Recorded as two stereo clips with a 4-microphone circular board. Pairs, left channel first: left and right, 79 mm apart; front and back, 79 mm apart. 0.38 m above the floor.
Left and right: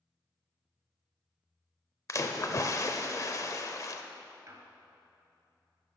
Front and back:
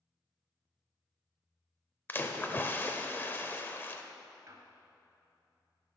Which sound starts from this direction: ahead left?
A splash, at 2.1 s.